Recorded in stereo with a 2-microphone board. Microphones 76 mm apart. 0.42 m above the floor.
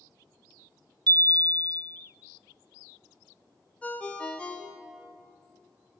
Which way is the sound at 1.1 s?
65° right (ahead or behind).